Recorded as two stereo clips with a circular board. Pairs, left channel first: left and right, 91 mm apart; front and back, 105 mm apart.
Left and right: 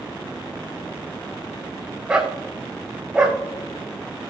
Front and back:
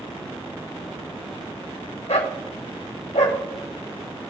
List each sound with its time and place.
2.1 s a dog barking: 10° right, 2.5 m